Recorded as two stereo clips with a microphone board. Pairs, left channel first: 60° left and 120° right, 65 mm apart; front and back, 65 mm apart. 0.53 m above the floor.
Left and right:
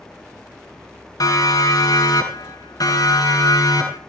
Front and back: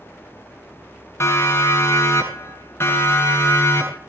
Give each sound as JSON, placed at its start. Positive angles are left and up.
{"t": 1.2, "sound": "a siren", "azimuth_deg": 45, "distance_m": 7.0}